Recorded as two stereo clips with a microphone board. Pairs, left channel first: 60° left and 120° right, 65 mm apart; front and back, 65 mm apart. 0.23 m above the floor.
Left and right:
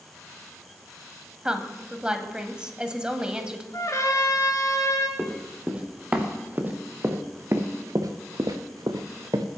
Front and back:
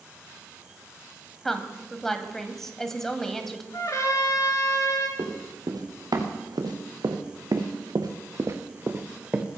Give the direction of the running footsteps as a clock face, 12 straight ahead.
6 o'clock.